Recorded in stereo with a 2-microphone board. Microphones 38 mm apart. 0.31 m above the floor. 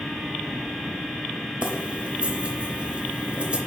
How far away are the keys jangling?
About 0.8 m.